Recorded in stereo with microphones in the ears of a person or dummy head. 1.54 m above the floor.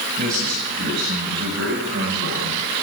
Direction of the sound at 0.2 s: 50° right (ahead or behind).